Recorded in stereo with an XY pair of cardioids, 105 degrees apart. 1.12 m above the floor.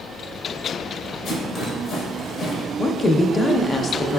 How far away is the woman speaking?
About 0.5 m.